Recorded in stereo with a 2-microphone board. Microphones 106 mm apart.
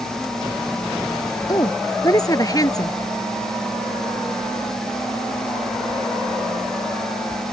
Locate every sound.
1.5 s a woman speaking: 35° left (ahead or behind)